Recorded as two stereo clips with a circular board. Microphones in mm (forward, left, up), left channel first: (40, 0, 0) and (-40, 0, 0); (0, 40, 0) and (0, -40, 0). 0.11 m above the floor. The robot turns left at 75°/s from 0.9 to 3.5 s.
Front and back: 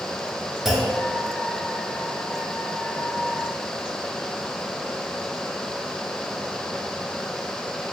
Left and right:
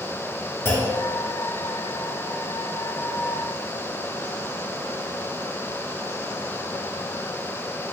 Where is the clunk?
100° left, 1.9 m; by 1.0 s 95° left, 1.9 m.